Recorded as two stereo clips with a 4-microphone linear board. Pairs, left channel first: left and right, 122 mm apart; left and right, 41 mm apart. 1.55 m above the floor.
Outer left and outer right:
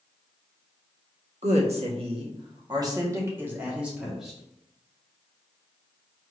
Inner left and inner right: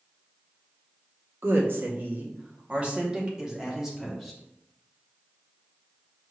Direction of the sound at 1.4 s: 65° right (ahead or behind).